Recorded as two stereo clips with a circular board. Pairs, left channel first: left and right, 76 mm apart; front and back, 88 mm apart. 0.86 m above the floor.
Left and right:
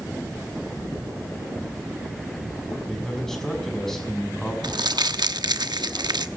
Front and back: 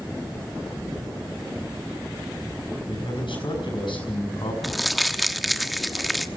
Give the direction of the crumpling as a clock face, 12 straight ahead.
3 o'clock.